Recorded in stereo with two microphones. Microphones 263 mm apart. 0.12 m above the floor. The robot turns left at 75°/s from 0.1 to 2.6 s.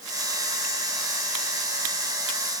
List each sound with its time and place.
Only background noise.